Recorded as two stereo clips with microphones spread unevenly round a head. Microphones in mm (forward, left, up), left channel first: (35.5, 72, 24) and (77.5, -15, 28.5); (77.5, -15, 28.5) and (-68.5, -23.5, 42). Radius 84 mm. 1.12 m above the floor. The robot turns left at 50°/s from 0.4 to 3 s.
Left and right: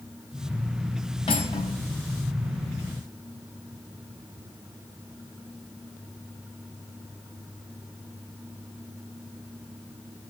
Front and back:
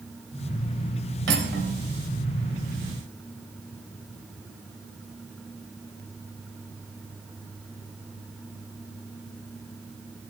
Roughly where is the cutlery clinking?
Behind.